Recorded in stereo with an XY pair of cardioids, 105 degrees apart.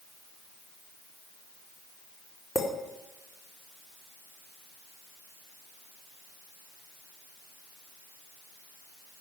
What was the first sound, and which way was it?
A clink, 40° left.